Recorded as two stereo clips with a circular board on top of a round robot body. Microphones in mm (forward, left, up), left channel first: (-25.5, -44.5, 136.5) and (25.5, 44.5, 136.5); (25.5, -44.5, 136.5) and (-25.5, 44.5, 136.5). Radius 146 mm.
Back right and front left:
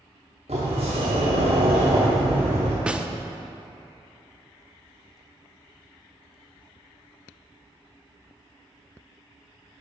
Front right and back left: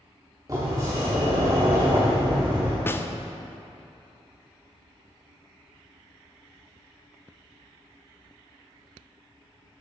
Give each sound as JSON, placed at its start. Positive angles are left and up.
{"t": 0.5, "sound": "a sliding door", "azimuth_deg": 70, "distance_m": 0.6}
{"t": 2.9, "sound": "a snare drum", "azimuth_deg": -10, "distance_m": 0.6}